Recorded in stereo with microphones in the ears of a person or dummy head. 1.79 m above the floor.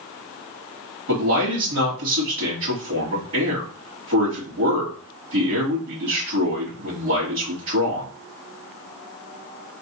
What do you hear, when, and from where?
1.1 s a man speaking: 60° right (ahead or behind), 2.5 m